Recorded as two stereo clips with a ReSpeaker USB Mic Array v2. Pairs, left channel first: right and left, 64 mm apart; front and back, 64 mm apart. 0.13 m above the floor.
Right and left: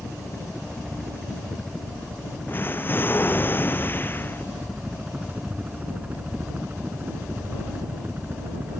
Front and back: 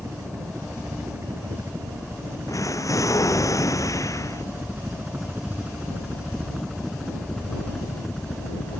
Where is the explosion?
35° right.